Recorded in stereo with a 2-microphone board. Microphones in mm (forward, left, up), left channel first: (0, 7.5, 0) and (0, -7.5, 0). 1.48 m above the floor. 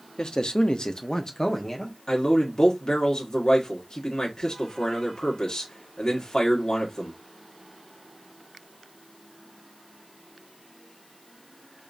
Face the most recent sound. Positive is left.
turn(degrees=80)